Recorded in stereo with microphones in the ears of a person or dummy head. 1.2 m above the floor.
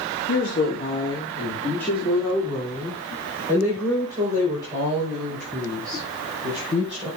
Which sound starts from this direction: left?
A woman speaking, at 0.3 s.